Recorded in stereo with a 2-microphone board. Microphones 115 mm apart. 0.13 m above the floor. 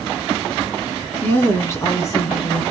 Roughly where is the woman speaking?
Centre.